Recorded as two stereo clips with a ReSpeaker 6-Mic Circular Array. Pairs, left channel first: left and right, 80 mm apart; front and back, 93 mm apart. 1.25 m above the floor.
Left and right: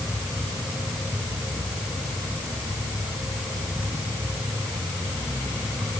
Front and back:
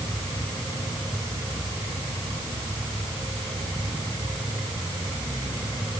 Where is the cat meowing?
I don't hear a cat meowing.